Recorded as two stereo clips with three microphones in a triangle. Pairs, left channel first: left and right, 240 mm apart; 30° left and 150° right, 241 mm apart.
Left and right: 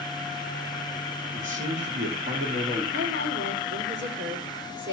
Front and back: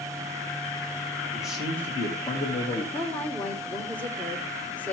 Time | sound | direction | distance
1.3 | a man speaking | 65° right | 2 m
2.9 | a woman speaking | 55° right | 2.5 m